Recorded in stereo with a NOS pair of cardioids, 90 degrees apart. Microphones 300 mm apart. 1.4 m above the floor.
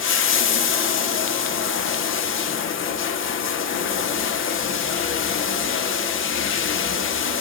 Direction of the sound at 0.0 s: 45° left.